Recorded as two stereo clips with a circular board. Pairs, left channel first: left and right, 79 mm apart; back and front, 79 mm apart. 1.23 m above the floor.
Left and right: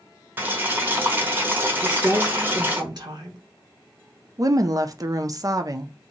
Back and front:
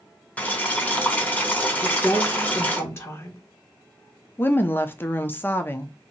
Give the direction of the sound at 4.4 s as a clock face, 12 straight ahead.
4 o'clock.